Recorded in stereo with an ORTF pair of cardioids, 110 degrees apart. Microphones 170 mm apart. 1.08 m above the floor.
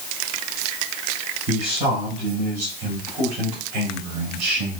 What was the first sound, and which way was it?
A man speaking, 50° right.